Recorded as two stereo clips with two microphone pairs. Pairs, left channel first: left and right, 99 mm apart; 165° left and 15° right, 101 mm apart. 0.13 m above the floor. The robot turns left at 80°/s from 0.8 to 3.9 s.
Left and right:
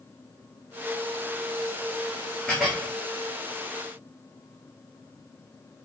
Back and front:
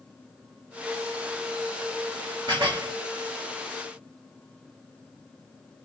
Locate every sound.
2.5 s dishes clattering: 5° left, 1.4 m; by 2.9 s 30° right, 1.4 m